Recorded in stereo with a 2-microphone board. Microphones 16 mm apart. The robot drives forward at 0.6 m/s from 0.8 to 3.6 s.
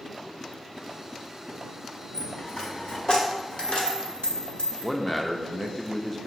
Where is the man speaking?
15° left (ahead or behind), 0.5 m.